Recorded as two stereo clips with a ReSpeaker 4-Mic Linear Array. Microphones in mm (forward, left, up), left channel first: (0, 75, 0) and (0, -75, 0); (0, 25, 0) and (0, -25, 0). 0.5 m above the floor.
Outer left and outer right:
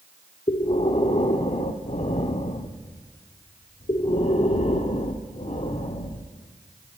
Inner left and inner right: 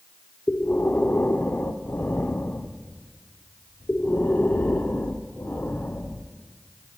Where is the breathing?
40° left (ahead or behind), 0.5 m.